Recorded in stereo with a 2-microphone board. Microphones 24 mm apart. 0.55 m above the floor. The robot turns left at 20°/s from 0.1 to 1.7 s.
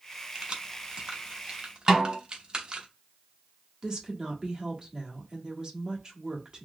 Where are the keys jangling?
45° right (ahead or behind), 0.8 m; by 2.9 s 40° right (ahead or behind), 0.8 m.